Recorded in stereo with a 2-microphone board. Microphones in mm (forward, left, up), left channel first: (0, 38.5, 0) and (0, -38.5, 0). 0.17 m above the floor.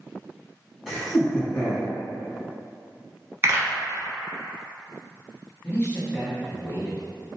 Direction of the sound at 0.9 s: 5° right (ahead or behind).